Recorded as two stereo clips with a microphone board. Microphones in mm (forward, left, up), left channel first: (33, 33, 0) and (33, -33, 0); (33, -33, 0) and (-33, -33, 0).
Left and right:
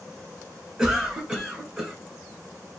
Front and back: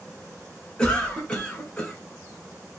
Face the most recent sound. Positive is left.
turn(degrees=-35)